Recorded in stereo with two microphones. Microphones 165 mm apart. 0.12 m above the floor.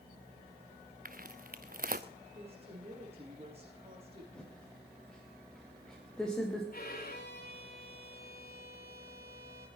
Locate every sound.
1.1 s footsteps: 60° right (ahead or behind), 0.9 m
2.4 s a woman speaking: 35° right (ahead or behind), 7.5 m
4.3 s typing on a keyboard: 5° left (ahead or behind), 5 m
6.7 s a violin: 55° left (ahead or behind), 3.5 m